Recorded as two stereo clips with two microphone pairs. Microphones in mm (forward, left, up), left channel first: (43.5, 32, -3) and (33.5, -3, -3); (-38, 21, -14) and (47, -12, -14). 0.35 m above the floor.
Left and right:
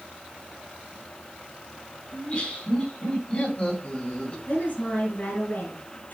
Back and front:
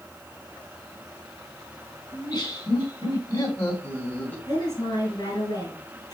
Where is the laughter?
110° left, 3.5 m; by 4.4 s 95° left, 2.0 m.